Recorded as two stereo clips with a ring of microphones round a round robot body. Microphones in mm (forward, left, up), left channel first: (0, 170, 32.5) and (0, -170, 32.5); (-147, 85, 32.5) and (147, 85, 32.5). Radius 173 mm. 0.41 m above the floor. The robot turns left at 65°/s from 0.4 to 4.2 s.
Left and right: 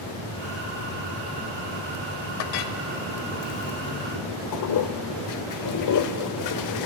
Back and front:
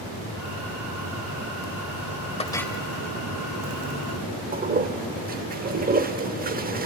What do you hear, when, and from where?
2.4 s a clink: 110° left, 1.0 m; by 2.8 s 85° left, 1.0 m
4.5 s a toilet flushing: 60° left, 0.9 m